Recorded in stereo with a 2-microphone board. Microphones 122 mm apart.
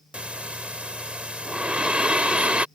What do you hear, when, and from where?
0.1 s breathing: 10° right (ahead or behind)